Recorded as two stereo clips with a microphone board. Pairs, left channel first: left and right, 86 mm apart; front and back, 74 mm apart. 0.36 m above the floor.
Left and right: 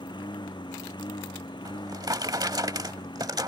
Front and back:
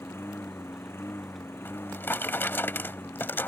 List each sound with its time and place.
0.0 s a lawn mower: 60° left
1.6 s a drawer: 55° right